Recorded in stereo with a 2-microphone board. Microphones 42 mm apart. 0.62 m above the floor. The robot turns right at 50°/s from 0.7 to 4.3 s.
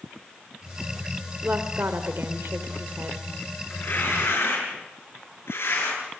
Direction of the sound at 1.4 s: 135° right.